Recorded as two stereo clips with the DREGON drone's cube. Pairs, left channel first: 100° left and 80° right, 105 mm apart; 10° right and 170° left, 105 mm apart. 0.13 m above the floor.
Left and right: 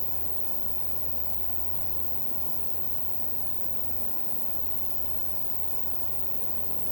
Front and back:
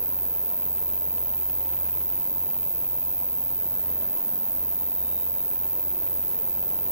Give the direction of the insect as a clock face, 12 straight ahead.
9 o'clock.